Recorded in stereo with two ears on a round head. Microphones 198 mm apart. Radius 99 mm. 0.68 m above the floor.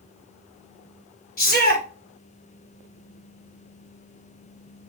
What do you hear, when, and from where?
1.4 s a shout: 45° left (ahead or behind), 2.5 m